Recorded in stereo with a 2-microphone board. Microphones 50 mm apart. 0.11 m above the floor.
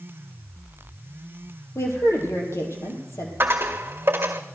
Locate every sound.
1.8 s a woman speaking: 65° left (ahead or behind), 4 m
3.4 s a dropped coin: 45° right (ahead or behind), 1.7 m